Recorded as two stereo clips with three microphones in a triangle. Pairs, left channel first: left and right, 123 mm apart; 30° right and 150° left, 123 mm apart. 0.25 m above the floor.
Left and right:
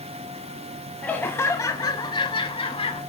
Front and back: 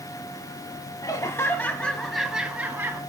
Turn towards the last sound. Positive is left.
turn(degrees=85)